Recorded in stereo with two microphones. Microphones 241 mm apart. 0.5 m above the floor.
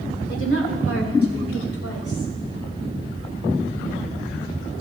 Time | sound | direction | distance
0.3 | a woman speaking | 50° left (ahead or behind) | 1.6 m